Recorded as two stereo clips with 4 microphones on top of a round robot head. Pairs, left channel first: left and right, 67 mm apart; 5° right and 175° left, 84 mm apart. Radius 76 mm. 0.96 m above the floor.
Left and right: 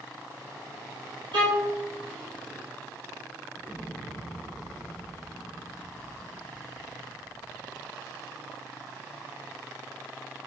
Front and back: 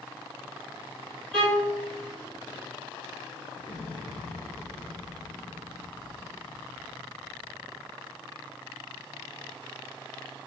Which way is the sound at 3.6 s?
30° left.